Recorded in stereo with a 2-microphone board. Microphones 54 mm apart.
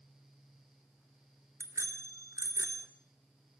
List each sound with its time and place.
1.6 s a bicycle bell: 70° right (ahead or behind), 2.5 m